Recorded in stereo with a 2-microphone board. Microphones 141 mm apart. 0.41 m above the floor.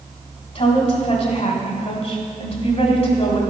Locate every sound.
0.6 s a woman speaking: 45° left (ahead or behind), 1.8 m